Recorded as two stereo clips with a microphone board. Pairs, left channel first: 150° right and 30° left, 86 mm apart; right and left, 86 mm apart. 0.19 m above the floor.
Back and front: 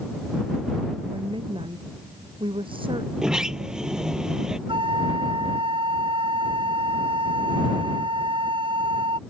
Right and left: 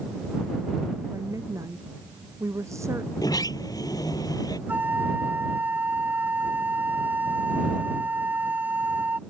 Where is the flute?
20° left.